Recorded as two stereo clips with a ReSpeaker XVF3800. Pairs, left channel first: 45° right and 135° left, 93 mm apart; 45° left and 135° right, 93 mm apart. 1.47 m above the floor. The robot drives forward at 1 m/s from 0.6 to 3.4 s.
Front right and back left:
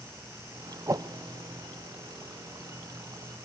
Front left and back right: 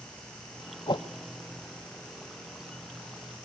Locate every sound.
0.9 s a whoosh: 75° left, 0.6 m; by 1.1 s 95° left, 0.6 m